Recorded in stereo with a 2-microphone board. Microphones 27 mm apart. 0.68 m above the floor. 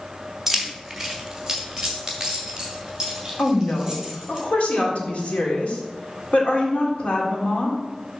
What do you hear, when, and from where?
0.5 s keys jangling: centre (ahead or behind), 1.2 m; by 4.4 s 20° right (ahead or behind), 4 m
3.4 s a woman speaking: 55° left (ahead or behind), 1.9 m